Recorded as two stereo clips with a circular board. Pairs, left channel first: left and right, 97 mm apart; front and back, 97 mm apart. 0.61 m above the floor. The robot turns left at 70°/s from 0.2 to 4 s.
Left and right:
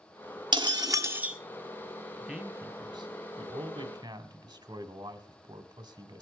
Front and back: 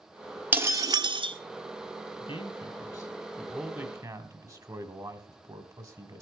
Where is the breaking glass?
110° right, 1.2 m; by 1.4 s 170° right, 1.2 m.